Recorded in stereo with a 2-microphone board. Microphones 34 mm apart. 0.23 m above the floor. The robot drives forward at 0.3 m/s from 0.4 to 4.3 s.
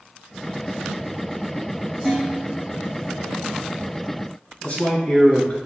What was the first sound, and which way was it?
Dishes clattering, 5° right (ahead or behind).